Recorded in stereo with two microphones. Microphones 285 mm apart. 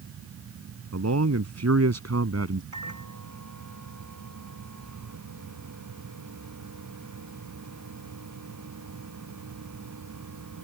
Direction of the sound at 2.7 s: 85° right.